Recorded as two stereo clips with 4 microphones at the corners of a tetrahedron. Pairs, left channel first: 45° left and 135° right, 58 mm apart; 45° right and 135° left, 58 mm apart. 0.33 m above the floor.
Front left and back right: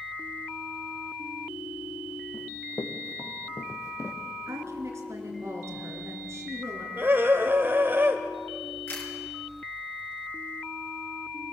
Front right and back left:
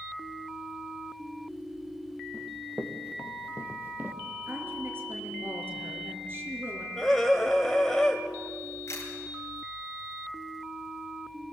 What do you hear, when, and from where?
2.3 s running footsteps: 60° left, 2.5 m; by 4.2 s 80° left, 3 m
4.5 s a woman speaking: 175° right, 4 m
7.0 s a scream: 125° right, 1.3 m
8.9 s a camera shutter: 5° right, 4.5 m